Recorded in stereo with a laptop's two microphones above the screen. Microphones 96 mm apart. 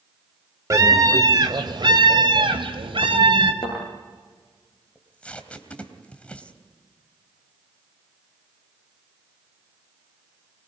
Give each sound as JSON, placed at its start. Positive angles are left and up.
{"t": 0.7, "sound": "a scream", "side_deg": -35, "distance_m": 2.5}
{"t": 3.6, "sound": "a thud", "side_deg": 45, "distance_m": 9.0}
{"t": 5.0, "sound": "tape being pulled", "side_deg": 10, "distance_m": 3.0}